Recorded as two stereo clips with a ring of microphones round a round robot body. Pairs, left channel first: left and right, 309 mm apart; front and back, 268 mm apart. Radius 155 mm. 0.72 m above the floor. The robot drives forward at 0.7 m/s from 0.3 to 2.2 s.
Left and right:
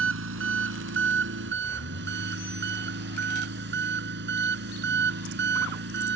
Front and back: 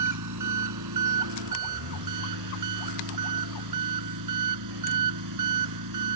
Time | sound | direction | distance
0.0 | an engine running | 140° right | ?